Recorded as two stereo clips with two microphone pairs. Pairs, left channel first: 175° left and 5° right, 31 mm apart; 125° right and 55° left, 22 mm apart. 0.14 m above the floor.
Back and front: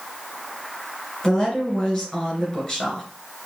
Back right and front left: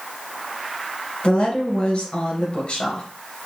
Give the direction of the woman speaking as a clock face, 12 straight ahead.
4 o'clock.